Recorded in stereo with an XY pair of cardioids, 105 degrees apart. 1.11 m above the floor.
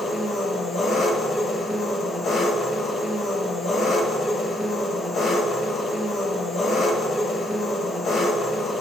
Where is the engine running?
55° left, 1.1 m.